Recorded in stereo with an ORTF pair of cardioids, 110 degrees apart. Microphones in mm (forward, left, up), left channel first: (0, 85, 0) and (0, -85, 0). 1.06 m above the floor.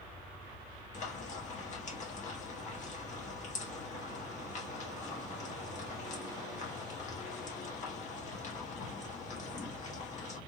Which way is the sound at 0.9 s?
45° left.